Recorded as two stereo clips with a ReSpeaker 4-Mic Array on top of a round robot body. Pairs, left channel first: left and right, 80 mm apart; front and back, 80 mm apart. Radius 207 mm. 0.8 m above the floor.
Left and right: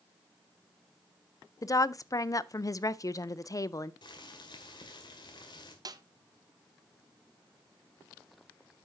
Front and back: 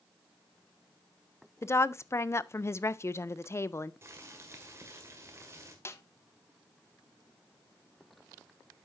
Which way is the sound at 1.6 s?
50° left.